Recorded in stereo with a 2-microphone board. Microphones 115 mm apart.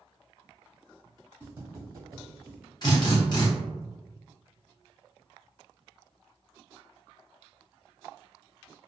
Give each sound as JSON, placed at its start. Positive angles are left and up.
{"t": 1.4, "sound": "footsteps", "side_deg": -20, "distance_m": 1.7}
{"t": 2.8, "sound": "a drill", "side_deg": 40, "distance_m": 0.9}